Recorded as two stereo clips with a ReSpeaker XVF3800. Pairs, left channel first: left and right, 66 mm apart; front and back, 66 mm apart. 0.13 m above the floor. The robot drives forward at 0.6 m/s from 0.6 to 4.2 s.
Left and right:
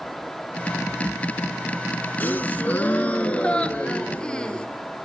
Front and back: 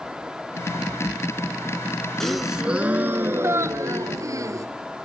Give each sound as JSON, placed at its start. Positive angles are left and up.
{"t": 2.2, "sound": "a gasp", "azimuth_deg": 80, "distance_m": 0.7}